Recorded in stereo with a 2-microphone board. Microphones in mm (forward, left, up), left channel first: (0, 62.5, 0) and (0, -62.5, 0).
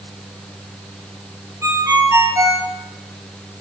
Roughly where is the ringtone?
Right.